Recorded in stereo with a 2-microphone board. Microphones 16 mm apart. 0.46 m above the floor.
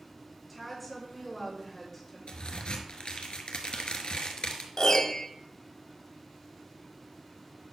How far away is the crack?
About 1.2 m.